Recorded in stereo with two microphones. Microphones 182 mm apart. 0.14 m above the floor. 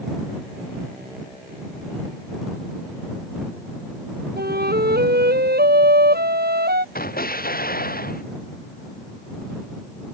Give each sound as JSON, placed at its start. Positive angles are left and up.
{"t": 4.4, "sound": "a flute", "side_deg": -60}
{"t": 7.0, "sound": "an explosion", "side_deg": 55}